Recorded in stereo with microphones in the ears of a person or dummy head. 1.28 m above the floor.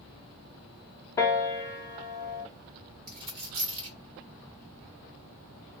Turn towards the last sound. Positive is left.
turn(degrees=-30)  # may be behind; listen again after turning